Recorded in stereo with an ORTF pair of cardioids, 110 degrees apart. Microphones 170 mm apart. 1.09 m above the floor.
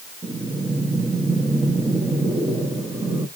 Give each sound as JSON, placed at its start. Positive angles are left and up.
{"t": 0.2, "sound": "breathing", "azimuth_deg": -15, "distance_m": 1.1}